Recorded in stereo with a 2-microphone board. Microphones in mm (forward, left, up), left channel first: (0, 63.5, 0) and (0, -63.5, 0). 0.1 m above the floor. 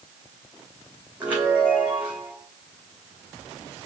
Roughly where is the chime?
Centre.